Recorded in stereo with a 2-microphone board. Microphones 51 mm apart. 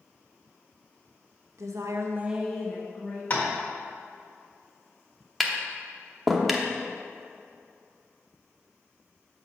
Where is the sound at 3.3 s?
40° left (ahead or behind), 1.5 m.